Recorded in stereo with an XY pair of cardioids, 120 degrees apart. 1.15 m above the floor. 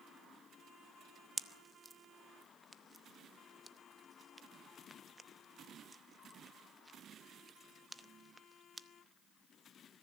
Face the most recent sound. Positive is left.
turn(degrees=-10)